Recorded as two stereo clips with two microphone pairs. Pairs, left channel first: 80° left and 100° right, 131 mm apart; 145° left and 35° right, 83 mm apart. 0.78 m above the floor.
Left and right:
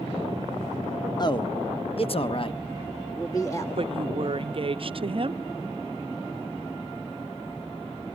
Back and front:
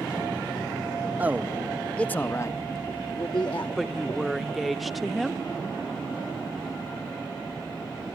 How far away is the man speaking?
About 1.0 m.